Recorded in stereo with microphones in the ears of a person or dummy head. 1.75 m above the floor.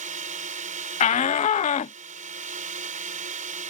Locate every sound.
0.0 s a drone: 40° right (ahead or behind)
1.0 s a shout: 25° left (ahead or behind)